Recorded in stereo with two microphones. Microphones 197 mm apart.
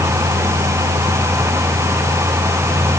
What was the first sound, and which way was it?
Only background noise.